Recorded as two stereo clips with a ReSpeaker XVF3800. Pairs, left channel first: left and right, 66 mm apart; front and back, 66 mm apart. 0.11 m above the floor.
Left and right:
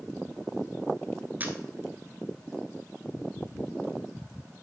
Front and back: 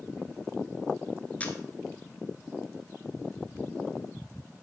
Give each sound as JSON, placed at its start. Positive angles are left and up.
{"t": 1.4, "sound": "a camera shutter", "azimuth_deg": -50, "distance_m": 1.0}